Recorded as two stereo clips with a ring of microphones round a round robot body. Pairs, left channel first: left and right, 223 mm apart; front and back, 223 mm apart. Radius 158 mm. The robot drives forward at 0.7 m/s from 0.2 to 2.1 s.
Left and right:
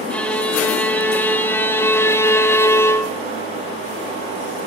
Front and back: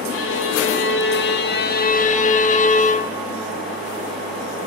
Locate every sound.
0.1 s a violin: 5° left, 2 m; by 3.2 s 20° left, 1.2 m